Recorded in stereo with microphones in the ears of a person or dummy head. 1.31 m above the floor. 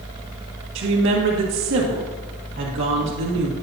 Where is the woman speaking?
75° right (ahead or behind), 1.7 m.